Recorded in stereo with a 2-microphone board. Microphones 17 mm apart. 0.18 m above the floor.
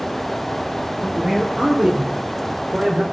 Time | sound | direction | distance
1.0 | a man speaking | 65° right (ahead or behind) | 6 m